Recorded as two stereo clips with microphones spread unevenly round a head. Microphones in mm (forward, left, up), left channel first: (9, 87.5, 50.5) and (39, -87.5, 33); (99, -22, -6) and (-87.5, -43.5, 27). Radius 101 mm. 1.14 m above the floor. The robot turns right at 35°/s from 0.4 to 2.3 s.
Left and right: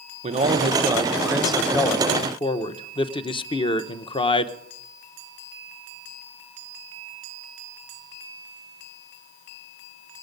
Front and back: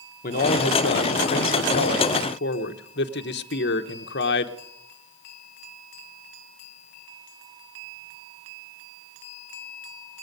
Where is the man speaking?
30° right, 0.9 m; by 4.5 s 35° left, 0.9 m.